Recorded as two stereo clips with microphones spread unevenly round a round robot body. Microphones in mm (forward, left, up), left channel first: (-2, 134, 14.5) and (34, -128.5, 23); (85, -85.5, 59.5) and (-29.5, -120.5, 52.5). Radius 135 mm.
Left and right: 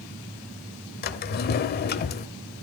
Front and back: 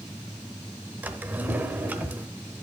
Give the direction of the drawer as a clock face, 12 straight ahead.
8 o'clock.